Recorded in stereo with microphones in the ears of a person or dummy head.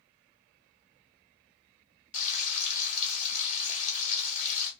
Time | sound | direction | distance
2.1 | frying | 50° left (ahead or behind) | 1.1 m